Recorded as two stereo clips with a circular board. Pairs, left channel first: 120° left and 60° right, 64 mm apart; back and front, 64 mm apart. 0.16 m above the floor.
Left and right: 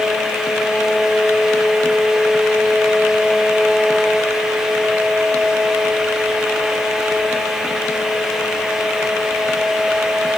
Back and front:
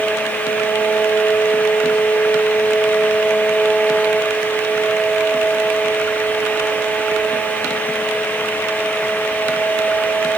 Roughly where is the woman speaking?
No woman speaking in this recording.